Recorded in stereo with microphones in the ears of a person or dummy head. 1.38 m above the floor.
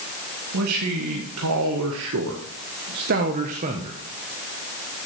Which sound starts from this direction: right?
A man speaking, at 0.5 s.